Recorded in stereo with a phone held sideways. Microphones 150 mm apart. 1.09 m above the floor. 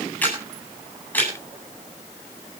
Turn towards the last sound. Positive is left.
turn(degrees=10)  # may be behind; listen again after turning